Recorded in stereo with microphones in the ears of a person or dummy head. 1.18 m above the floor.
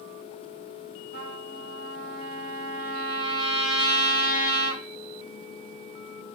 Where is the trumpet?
40° right (ahead or behind), 0.9 m.